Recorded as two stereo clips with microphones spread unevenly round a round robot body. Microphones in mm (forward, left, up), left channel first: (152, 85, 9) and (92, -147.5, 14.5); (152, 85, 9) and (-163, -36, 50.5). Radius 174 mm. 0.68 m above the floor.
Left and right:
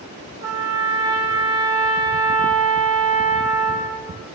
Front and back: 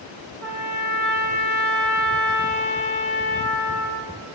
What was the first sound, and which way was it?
A trumpet, 95° right.